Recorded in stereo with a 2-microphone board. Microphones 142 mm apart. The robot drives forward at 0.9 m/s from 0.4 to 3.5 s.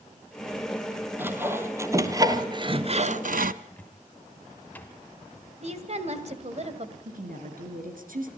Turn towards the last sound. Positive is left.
turn(degrees=-75)  # may be behind; listen again after turning